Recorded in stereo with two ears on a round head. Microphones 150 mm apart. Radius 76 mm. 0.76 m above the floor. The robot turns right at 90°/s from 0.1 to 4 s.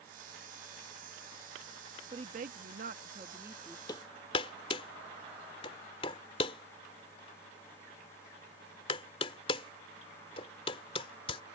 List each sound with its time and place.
2.1 s a woman speaking: 140° right; by 3.8 s 10° left
3.9 s hammering: 25° left (ahead or behind); by 11.4 s 35° left (ahead or behind)